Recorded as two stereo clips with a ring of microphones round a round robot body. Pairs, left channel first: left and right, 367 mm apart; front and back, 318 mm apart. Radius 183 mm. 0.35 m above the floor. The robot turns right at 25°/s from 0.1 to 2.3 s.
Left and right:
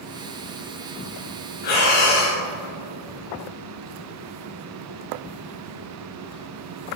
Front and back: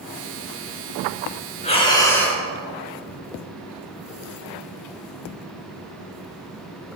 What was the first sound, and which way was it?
Breathing, 70° left.